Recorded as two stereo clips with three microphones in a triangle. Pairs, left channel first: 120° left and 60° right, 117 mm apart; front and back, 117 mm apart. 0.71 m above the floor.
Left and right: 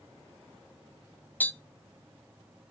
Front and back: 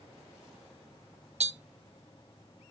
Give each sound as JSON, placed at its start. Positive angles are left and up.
{"t": 1.4, "sound": "tapping", "azimuth_deg": -165, "distance_m": 0.5}